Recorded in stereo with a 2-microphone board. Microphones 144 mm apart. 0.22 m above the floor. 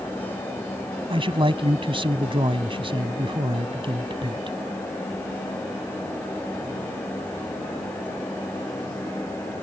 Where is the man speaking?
40° right (ahead or behind).